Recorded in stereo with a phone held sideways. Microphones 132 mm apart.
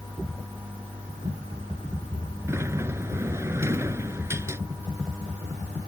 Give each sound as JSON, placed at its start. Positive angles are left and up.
{"t": 2.5, "sound": "a sliding door", "side_deg": -20}